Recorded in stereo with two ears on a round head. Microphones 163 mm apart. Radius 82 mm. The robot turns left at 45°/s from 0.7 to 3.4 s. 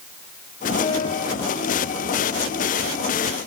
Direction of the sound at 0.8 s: 25° left (ahead or behind).